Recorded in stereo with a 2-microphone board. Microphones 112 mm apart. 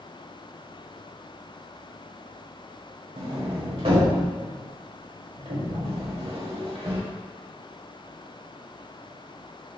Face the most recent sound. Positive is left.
turn(degrees=-60)  # may be behind; listen again after turning